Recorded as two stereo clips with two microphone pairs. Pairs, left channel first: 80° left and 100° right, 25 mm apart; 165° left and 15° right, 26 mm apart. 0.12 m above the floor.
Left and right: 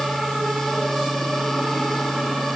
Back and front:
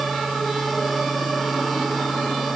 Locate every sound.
Only background noise.